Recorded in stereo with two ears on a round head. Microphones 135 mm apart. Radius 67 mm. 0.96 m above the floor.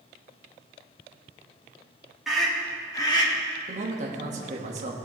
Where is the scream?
Centre (ahead or behind), 1.7 m; by 3.3 s 35° left (ahead or behind), 1.7 m.